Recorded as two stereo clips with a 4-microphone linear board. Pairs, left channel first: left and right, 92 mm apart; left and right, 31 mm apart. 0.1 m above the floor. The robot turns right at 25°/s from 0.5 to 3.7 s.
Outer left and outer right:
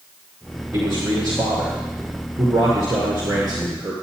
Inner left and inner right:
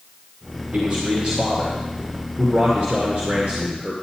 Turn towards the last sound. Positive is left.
turn(degrees=-65)